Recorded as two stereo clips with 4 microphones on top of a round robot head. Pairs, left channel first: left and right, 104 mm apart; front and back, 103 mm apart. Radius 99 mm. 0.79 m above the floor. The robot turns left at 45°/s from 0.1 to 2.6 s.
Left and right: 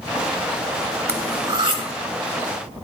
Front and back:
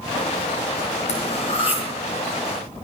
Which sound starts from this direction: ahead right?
Cutlery clinking, at 1.1 s.